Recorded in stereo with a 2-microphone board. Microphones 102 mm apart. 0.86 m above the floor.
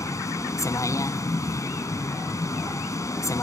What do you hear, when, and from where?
0.0 s a vehicle: 30° left (ahead or behind)